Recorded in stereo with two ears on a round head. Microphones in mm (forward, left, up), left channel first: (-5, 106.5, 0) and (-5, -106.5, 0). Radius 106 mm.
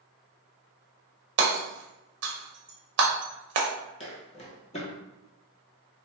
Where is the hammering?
50° right (ahead or behind), 0.6 m.